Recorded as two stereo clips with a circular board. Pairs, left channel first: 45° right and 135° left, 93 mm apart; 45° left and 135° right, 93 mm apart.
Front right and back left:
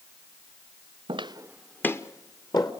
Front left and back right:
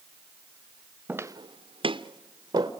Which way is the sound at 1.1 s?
150° left.